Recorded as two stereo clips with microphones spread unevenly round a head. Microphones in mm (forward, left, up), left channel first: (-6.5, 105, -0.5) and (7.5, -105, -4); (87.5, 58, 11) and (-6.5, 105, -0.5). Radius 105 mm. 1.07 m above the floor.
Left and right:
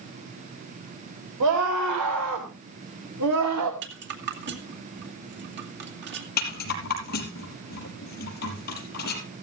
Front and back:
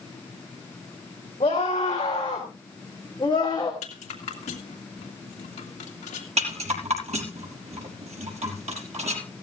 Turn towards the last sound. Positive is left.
turn(degrees=140)